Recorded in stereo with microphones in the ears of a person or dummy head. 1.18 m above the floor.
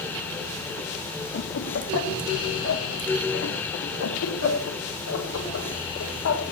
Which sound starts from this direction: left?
Laughter, at 1.3 s.